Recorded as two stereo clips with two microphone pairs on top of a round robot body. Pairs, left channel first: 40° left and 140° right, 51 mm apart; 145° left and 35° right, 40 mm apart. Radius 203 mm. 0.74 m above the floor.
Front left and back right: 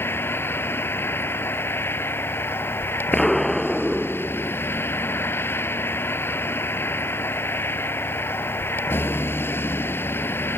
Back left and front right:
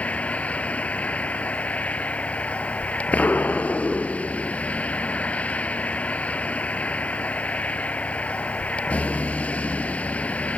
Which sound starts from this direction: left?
A vehicle, at 0.0 s.